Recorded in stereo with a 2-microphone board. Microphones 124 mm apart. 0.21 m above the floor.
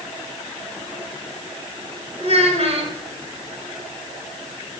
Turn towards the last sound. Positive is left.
turn(degrees=-60)  # may be behind; listen again after turning